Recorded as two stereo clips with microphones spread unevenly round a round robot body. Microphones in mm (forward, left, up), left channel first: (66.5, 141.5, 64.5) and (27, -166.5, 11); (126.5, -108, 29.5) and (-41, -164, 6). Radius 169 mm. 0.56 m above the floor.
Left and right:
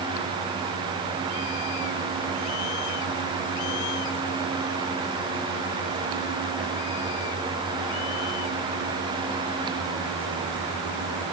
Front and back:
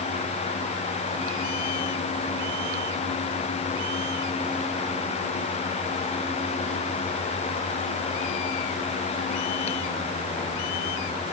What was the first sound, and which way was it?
Only background noise.